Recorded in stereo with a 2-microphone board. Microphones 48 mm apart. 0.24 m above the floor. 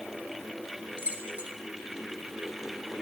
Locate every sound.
1.0 s keys jangling: 30° right (ahead or behind), 1.1 m